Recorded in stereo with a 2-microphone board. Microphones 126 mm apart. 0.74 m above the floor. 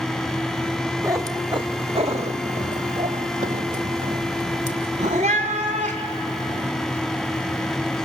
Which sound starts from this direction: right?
A cat meowing, at 1.0 s.